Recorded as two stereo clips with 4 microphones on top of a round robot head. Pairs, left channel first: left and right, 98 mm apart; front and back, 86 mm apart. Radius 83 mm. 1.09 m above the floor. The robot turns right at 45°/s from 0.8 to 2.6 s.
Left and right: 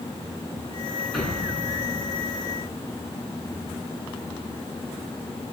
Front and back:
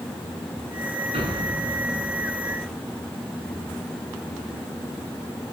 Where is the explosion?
Straight behind, 9.5 m; by 2.8 s 115° right, 9.5 m.